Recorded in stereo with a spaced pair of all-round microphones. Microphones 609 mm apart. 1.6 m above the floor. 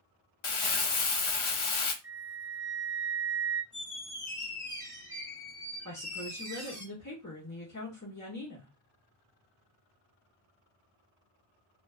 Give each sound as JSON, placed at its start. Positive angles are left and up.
{"t": 0.4, "sound": "crumpling", "side_deg": 60, "distance_m": 0.5}
{"t": 2.0, "sound": "a flute", "side_deg": -25, "distance_m": 0.7}
{"t": 3.7, "sound": "a squeak", "side_deg": 30, "distance_m": 1.5}
{"t": 5.8, "sound": "a woman speaking", "side_deg": 30, "distance_m": 0.8}